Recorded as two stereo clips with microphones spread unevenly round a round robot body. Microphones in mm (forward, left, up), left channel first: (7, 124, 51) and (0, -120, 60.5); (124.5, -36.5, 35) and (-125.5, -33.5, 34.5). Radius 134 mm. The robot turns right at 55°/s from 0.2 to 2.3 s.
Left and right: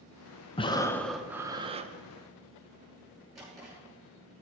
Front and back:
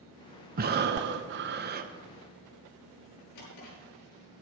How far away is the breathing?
About 0.7 m.